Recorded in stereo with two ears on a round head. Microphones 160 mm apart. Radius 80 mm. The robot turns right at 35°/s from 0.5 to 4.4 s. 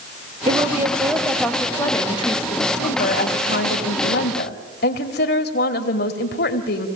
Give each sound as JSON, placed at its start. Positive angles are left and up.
{"t": 0.5, "sound": "a woman speaking", "azimuth_deg": -30, "distance_m": 1.9}